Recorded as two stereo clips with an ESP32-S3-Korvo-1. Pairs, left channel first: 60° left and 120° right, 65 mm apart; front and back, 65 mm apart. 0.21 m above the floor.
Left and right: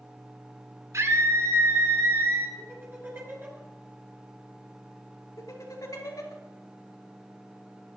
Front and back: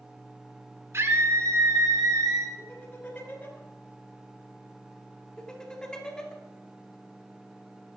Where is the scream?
145° right, 2.5 m; by 2.5 s 170° right, 3 m.